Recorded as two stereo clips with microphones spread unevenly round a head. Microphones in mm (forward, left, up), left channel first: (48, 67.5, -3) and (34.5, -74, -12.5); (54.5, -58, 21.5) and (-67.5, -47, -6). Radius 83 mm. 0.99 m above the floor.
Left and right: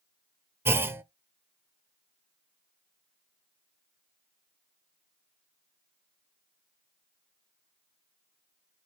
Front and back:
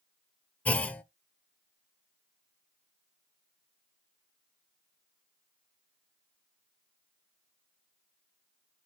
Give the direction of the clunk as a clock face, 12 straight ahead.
1 o'clock.